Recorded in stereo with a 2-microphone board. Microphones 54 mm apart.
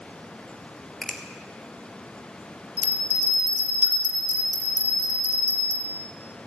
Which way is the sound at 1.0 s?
5° left (ahead or behind).